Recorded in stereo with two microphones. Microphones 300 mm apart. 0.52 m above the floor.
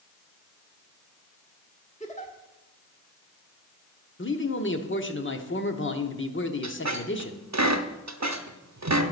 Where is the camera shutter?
No camera shutter in this recording.